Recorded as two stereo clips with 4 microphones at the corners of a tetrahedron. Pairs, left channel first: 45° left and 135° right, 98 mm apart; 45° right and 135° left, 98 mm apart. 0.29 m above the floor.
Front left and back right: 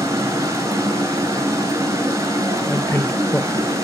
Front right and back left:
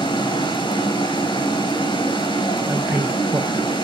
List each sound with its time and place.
0.0 s running water: 75° right, 2 m
2.7 s a man speaking: 90° left, 1.0 m